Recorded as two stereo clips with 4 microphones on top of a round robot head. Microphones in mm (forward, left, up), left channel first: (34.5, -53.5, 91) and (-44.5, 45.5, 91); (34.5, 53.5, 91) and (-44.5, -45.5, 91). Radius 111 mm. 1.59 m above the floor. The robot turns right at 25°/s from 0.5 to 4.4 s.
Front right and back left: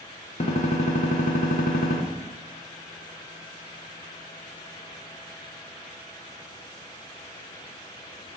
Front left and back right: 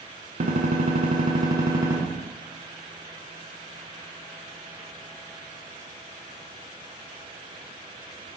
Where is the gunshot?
90° right, 1.1 m; by 2.0 s 55° right, 1.1 m.